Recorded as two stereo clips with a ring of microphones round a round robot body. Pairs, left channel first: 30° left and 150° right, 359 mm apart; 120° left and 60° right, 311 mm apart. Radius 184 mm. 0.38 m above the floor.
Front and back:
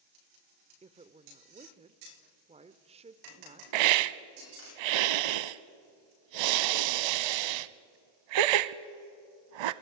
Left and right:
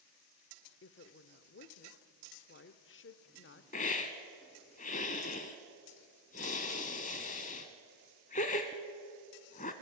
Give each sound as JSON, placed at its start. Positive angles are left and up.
{"t": 0.8, "sound": "a woman speaking", "azimuth_deg": 145, "distance_m": 0.9}
{"t": 3.7, "sound": "a hiss", "azimuth_deg": -170, "distance_m": 0.7}